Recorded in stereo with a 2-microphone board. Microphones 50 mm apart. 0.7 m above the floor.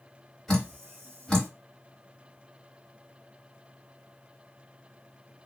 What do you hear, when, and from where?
0.5 s dripping: 10° left (ahead or behind), 1.9 m